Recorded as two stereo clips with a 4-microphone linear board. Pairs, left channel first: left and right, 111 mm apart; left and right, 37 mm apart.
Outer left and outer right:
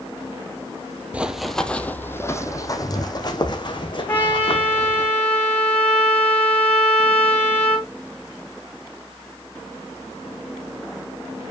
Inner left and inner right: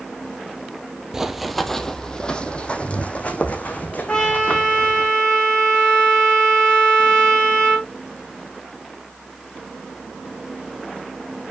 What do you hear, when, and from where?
1.1 s running footsteps: 10° right (ahead or behind), 0.8 m; by 5.1 s 50° left (ahead or behind), 2.5 m
4.1 s a trumpet: 15° left (ahead or behind), 7 m